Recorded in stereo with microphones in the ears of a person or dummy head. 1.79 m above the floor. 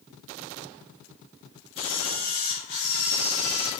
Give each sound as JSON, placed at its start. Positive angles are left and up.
{"t": 1.8, "sound": "a camera shutter", "side_deg": 75, "distance_m": 2.0}